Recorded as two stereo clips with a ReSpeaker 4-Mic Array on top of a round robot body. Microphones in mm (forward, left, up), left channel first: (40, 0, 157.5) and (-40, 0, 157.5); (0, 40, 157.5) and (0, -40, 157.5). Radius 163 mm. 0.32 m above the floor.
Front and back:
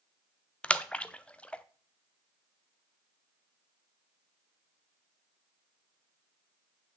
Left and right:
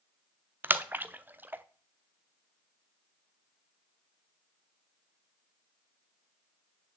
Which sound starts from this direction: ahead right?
A splash, at 0.6 s.